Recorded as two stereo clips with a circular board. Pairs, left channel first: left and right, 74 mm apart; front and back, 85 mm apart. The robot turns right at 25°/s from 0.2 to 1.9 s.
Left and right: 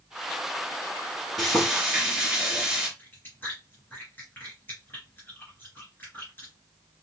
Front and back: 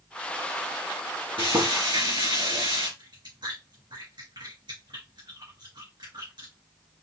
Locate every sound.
1.4 s frying: 175° left, 3.5 m; by 2.9 s 170° right, 3.5 m
3.0 s chewing: 155° left, 3 m